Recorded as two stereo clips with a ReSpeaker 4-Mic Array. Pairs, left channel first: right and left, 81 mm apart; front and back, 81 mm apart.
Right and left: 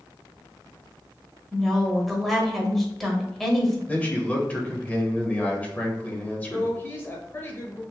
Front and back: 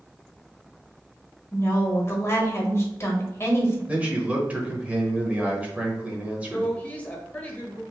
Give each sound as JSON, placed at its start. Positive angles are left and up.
{"t": 1.5, "sound": "a woman speaking", "azimuth_deg": -5, "distance_m": 1.1}
{"t": 3.9, "sound": "a man speaking", "azimuth_deg": -135, "distance_m": 0.9}
{"t": 6.5, "sound": "a woman speaking", "azimuth_deg": -55, "distance_m": 1.1}